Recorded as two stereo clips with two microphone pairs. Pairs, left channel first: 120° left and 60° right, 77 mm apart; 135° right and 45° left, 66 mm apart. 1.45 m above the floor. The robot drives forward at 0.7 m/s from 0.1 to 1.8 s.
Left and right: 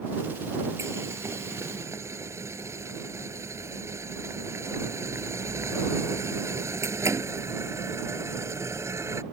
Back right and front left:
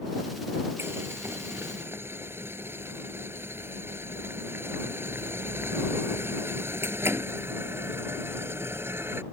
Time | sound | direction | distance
0.8 | boiling | 10° right | ?